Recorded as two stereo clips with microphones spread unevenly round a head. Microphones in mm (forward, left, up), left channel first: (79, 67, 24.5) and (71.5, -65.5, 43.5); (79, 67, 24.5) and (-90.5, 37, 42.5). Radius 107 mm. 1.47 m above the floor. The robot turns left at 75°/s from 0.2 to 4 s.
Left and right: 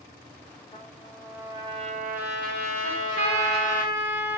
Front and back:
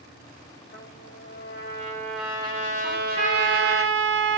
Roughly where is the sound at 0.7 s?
Ahead left.